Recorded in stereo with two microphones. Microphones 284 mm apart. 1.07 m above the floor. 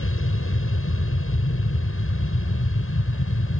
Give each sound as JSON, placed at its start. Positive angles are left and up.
{"t": 0.0, "sound": "an aircraft", "side_deg": 45}